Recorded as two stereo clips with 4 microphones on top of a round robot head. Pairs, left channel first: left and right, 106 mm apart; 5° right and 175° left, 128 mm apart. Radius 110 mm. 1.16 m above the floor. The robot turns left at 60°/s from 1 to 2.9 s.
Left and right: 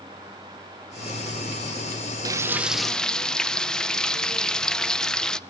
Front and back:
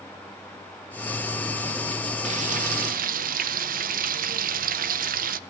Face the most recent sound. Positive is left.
turn(degrees=175)